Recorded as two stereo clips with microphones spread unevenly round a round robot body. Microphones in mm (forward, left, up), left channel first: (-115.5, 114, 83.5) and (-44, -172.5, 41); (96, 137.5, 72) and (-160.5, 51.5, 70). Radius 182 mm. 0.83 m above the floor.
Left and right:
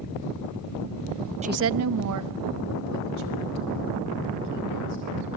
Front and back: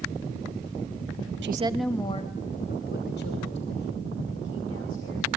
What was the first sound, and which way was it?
A woman speaking, 130° right.